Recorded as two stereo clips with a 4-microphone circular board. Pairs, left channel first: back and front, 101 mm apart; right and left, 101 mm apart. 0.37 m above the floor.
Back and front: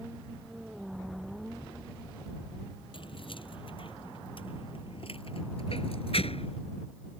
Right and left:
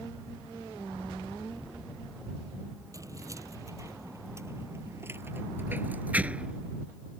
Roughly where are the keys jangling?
Behind left.